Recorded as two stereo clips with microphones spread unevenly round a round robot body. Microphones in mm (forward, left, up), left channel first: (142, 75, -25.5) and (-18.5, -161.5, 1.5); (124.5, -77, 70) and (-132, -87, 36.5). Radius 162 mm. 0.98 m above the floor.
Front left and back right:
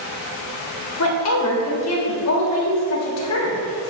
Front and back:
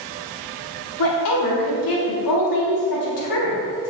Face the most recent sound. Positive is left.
turn(degrees=20)